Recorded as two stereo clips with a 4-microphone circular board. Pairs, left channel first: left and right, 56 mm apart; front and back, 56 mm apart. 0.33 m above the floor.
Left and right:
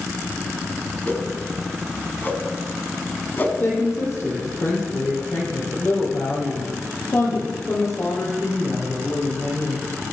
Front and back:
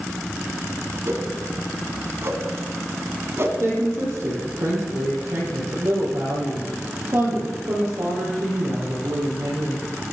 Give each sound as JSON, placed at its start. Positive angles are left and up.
{"t": 1.1, "sound": "a whoosh", "azimuth_deg": 145, "distance_m": 2.0}
{"t": 3.6, "sound": "a woman speaking", "azimuth_deg": 140, "distance_m": 9.0}